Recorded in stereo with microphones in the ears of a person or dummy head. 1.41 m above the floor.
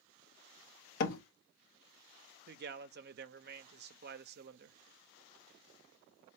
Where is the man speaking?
50° right (ahead or behind), 0.6 m.